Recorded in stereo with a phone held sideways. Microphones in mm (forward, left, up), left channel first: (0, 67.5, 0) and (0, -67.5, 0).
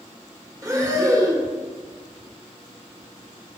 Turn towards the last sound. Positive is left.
turn(degrees=-25)  # may be behind; listen again after turning